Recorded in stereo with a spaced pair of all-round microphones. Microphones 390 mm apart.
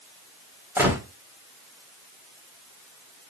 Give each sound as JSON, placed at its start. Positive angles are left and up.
{"t": 0.8, "sound": "a gunshot", "side_deg": -5, "distance_m": 1.4}